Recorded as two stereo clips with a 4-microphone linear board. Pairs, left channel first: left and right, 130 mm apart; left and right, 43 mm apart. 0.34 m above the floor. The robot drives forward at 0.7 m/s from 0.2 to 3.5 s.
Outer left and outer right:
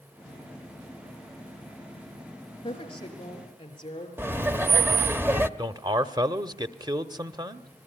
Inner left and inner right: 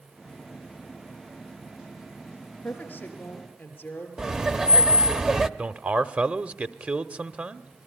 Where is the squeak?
No squeak in this recording.